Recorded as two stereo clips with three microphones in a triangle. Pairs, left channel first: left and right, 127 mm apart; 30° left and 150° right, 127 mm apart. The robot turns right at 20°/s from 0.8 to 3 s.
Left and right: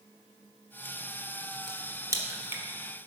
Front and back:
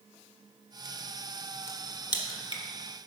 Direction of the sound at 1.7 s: 35° right.